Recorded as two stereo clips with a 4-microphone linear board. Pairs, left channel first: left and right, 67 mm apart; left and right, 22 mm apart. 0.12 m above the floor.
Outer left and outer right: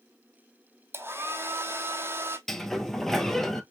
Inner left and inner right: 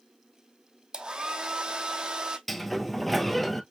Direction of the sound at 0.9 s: 35° right (ahead or behind).